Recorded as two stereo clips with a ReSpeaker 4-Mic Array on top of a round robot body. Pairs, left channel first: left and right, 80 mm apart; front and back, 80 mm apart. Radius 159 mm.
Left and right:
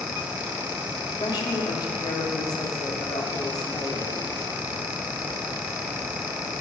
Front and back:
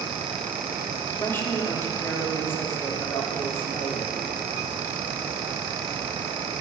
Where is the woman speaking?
60° left, 2.5 m.